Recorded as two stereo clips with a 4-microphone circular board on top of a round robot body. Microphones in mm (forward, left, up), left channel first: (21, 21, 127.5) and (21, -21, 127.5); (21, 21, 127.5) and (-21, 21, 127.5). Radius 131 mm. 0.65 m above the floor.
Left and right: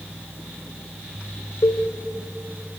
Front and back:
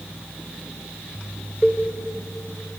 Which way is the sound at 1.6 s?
100° left.